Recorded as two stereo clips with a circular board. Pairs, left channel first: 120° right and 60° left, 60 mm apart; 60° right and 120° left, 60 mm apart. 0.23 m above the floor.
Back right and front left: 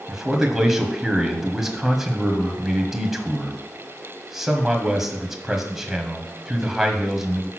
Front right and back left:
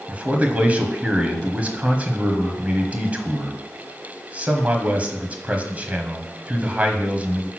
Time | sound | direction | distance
0.1 | a man speaking | 130° left | 1.4 m